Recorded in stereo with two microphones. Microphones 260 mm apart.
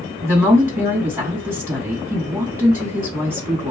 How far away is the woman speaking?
About 2.5 m.